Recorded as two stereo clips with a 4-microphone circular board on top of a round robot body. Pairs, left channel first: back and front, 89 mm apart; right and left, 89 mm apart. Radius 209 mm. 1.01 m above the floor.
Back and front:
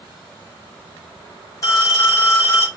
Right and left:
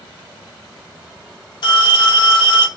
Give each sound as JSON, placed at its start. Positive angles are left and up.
{"t": 1.6, "sound": "a phone ringing", "azimuth_deg": -125, "distance_m": 1.8}